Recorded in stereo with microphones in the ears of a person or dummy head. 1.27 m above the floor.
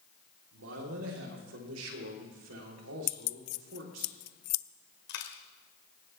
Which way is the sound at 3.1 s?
55° left (ahead or behind).